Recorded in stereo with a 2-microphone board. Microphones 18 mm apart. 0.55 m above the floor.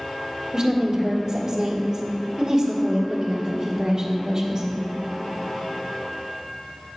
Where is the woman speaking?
45° right (ahead or behind), 1.4 m.